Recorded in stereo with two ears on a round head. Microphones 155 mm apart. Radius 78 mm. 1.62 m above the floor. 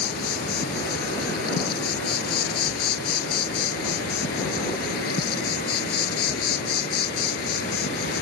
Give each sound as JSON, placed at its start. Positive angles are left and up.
{"t": 0.0, "sound": "an insect", "side_deg": 60}